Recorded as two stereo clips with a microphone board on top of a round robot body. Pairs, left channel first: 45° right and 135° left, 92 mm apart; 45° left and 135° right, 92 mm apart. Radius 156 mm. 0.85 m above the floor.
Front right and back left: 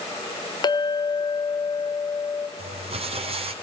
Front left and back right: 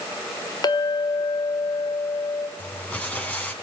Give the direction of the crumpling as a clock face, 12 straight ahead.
8 o'clock.